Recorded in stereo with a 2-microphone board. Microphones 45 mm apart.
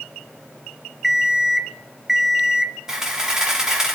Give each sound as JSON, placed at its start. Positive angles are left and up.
{"t": 1.0, "sound": "an alarm clock", "side_deg": -5, "distance_m": 0.6}
{"t": 2.9, "sound": "a camera shutter", "side_deg": -15, "distance_m": 2.0}